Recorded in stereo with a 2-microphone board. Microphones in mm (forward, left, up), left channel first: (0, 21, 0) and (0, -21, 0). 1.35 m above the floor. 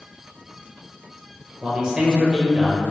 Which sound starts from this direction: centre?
A man speaking, at 1.6 s.